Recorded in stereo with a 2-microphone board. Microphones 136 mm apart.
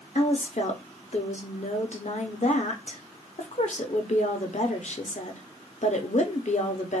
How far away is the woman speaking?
About 0.7 m.